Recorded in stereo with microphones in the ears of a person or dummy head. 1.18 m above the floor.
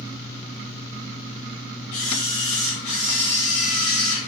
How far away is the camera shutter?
About 1.6 m.